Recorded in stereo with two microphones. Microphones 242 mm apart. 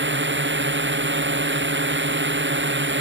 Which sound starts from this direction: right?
A drone, at 0.0 s.